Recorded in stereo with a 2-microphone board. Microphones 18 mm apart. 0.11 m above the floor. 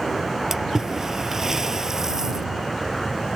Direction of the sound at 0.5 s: 30° right (ahead or behind).